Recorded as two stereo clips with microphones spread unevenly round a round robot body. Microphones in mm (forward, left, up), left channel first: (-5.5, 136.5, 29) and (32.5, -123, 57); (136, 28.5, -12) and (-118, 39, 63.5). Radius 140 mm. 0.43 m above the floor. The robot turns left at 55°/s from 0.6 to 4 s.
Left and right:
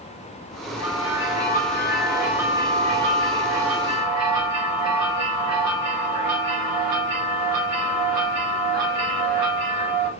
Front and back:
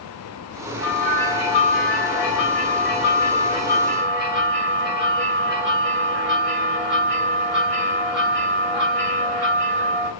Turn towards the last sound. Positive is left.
turn(degrees=-85)